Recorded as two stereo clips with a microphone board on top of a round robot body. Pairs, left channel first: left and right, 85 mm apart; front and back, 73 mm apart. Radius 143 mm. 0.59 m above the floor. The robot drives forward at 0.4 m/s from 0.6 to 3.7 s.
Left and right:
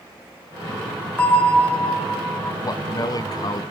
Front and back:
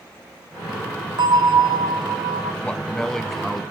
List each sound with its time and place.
1.2 s a bell: 165° left, 2.5 m
2.6 s a man speaking: 70° left, 1.1 m; by 3.6 s 95° left, 1.1 m